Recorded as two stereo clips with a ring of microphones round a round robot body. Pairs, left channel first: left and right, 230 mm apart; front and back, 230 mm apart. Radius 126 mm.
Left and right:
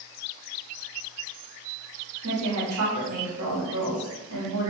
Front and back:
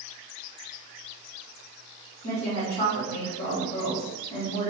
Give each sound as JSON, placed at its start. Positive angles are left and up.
{"t": 2.2, "sound": "a woman speaking", "azimuth_deg": -70, "distance_m": 1.6}